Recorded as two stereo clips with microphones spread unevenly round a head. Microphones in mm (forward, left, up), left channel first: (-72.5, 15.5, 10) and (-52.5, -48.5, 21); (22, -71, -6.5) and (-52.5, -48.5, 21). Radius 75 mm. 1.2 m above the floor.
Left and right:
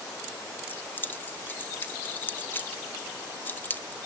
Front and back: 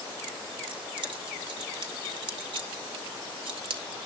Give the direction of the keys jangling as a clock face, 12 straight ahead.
6 o'clock.